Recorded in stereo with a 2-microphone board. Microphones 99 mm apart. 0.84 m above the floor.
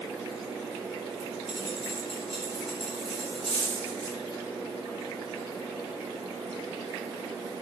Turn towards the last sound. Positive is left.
turn(degrees=80)